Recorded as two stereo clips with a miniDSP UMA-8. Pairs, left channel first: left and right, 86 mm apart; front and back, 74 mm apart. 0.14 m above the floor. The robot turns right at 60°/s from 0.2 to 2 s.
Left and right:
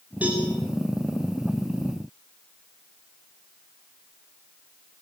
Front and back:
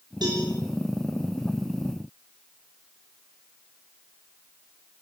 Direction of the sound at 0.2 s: 165° right.